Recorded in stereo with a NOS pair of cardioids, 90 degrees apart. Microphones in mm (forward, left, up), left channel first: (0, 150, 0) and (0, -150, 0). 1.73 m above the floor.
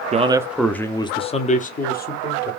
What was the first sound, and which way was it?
A man speaking, 25° right.